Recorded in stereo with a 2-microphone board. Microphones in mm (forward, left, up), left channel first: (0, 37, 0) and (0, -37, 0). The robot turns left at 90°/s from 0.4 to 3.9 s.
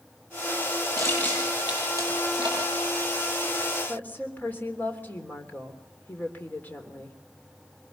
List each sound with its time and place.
1.0 s crushing: 45° left (ahead or behind), 9.5 m; by 2.6 s 80° right, 9.5 m
3.9 s a woman speaking: 25° left (ahead or behind), 3 m